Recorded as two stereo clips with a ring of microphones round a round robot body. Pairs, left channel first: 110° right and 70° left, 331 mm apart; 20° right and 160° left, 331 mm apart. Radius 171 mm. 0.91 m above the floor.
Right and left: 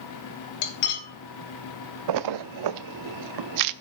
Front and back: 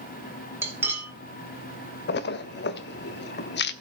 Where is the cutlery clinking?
120° right, 2.0 m.